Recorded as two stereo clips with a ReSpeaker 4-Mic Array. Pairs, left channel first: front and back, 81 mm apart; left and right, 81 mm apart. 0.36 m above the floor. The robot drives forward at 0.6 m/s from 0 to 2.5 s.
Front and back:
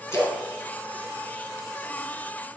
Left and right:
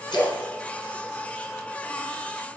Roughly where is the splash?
Ahead left.